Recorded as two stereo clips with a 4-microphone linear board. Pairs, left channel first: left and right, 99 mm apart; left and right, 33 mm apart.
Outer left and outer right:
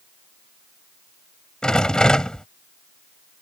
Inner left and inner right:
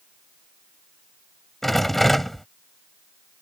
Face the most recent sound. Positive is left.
turn(degrees=10)  # may be behind; listen again after turning